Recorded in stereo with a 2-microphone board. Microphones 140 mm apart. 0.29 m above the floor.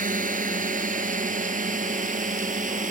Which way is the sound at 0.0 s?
70° right (ahead or behind).